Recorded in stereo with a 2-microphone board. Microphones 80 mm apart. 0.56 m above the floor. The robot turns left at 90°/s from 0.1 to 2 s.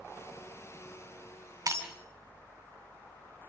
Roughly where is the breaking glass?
Right.